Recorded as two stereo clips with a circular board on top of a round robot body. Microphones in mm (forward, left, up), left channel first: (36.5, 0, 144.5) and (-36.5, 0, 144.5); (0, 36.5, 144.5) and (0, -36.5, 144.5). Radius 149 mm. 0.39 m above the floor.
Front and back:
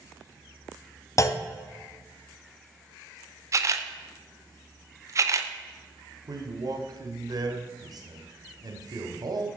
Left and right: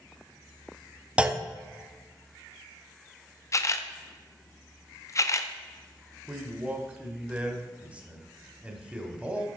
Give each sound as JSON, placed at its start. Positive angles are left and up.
{"t": 1.2, "sound": "a clunk", "azimuth_deg": -20, "distance_m": 1.0}
{"t": 3.5, "sound": "a camera shutter", "azimuth_deg": 135, "distance_m": 0.9}
{"t": 6.3, "sound": "a man speaking", "azimuth_deg": -160, "distance_m": 1.9}